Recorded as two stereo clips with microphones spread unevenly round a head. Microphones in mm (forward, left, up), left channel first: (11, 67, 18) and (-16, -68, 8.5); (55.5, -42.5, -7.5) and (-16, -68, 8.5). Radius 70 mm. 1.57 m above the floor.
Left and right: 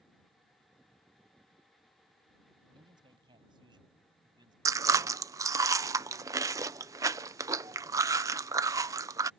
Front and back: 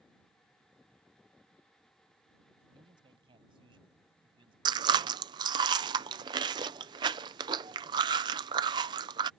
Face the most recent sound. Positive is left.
turn(degrees=-170)